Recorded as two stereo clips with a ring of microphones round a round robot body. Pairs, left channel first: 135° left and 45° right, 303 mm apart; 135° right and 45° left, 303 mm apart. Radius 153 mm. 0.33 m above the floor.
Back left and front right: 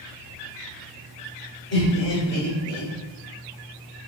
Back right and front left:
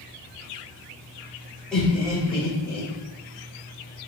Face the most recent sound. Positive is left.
turn(degrees=60)